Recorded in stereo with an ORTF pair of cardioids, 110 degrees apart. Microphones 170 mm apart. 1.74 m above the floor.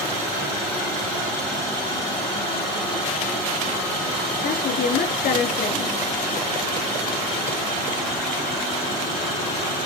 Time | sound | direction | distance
4.4 | a woman speaking | 60° left | 3.5 m